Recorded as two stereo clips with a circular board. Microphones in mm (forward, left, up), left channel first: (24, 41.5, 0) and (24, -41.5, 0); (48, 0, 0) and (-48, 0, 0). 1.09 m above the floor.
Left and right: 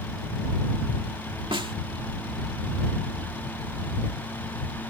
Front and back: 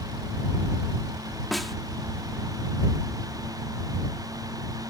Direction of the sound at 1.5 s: 90° right.